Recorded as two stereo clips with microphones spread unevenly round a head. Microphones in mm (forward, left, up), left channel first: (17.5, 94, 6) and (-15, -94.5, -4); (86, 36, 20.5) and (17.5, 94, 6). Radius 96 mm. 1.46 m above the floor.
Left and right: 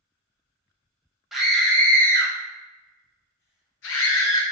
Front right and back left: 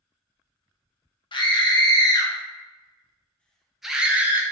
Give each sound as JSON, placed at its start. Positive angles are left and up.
{"t": 1.3, "sound": "a scream", "azimuth_deg": -10, "distance_m": 1.5}